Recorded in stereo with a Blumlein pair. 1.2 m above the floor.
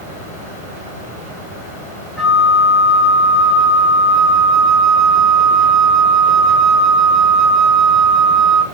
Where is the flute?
15° left, 1.1 m.